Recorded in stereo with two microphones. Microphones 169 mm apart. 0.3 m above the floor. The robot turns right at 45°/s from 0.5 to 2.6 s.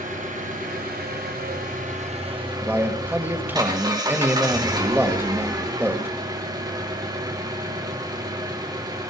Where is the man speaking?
10° right (ahead or behind), 1.3 m.